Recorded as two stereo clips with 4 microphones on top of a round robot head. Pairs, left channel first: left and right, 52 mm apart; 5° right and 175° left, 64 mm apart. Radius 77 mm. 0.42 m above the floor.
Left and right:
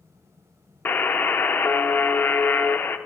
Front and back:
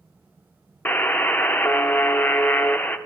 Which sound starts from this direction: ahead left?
A buzzer, at 0.8 s.